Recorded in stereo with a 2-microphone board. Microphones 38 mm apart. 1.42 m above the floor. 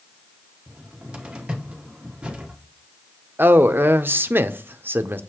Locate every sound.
0.7 s a cupboard door: 30° right (ahead or behind), 1.3 m
3.4 s a man speaking: 65° right (ahead or behind), 0.6 m